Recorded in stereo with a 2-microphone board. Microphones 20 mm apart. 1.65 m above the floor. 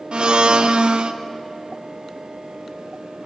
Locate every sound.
0.1 s a blender: 55° right (ahead or behind), 1.2 m